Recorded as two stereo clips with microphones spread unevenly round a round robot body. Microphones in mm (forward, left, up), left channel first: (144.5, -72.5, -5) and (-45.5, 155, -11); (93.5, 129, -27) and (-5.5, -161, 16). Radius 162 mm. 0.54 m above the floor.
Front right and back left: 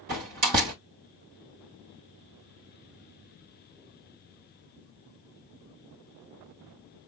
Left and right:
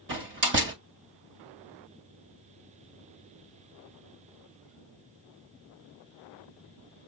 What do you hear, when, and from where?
0.1 s a door slam: 170° right, 1.9 m